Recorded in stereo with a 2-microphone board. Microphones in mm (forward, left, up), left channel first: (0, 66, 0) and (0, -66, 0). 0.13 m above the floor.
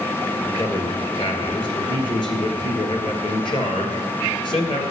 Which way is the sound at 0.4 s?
45° left (ahead or behind).